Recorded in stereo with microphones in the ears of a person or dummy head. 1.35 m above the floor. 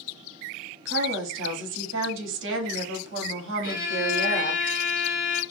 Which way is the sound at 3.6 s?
65° left (ahead or behind).